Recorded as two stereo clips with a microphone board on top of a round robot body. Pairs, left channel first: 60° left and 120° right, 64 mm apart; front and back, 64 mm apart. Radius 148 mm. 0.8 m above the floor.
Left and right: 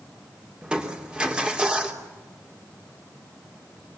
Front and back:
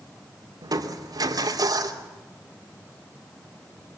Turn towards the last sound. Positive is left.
turn(degrees=165)